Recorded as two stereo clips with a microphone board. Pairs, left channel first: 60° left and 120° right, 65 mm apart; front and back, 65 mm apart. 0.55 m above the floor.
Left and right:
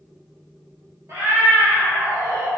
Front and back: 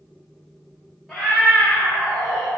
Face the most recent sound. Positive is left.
turn(degrees=-100)